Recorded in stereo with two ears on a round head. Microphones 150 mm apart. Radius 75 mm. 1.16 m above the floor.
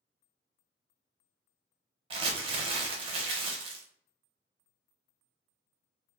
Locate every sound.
2.1 s crumpling: 30° right (ahead or behind), 0.6 m